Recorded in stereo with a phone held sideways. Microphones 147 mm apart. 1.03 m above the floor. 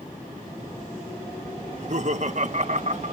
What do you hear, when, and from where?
1.7 s laughter: 55° right (ahead or behind)